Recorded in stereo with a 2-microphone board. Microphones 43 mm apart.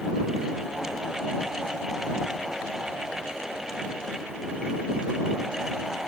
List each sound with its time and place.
Only background noise.